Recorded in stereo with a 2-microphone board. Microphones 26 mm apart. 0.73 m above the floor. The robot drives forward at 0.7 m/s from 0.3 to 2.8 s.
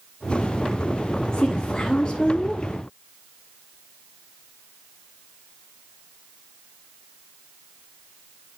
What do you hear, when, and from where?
1.3 s a woman speaking: 40° left (ahead or behind), 1.4 m; by 2.6 s 25° left (ahead or behind), 2 m